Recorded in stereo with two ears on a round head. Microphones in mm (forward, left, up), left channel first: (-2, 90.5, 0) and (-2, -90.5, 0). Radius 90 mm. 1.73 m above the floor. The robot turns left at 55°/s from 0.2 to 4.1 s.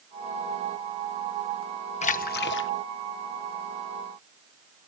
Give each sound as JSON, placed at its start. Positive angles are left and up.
{"t": 2.0, "sound": "a splash", "azimuth_deg": 145}